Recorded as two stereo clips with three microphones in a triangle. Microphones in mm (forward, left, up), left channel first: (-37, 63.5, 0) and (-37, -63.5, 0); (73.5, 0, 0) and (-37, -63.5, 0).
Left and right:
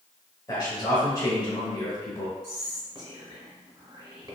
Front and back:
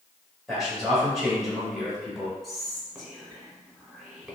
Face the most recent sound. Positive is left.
turn(degrees=-60)